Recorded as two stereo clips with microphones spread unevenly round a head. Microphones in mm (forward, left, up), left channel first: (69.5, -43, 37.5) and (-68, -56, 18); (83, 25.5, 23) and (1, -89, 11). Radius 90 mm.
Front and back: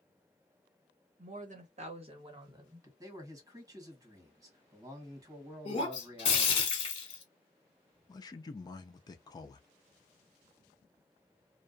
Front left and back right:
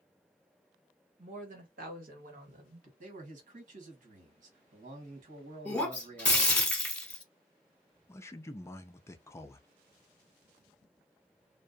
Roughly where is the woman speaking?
Behind.